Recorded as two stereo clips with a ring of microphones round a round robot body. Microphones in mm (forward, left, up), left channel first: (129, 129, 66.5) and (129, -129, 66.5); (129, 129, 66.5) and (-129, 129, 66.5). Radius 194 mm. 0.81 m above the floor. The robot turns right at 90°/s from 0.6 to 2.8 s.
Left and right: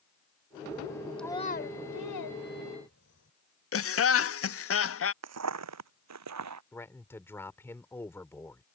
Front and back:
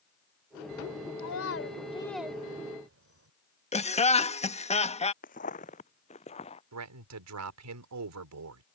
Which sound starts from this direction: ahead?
A child speaking, at 1.2 s.